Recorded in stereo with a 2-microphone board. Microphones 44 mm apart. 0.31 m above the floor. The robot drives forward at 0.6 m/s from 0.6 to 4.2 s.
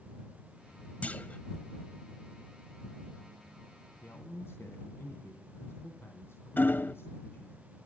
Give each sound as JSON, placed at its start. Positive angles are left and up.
{"t": 1.0, "sound": "a clunk", "side_deg": 35, "distance_m": 1.3}
{"t": 4.0, "sound": "a man speaking", "side_deg": 65, "distance_m": 3.0}
{"t": 6.6, "sound": "hammering", "side_deg": 50, "distance_m": 0.5}